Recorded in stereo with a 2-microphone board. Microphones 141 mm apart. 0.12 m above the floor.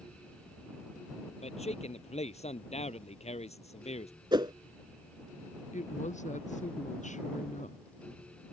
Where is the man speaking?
50° left (ahead or behind).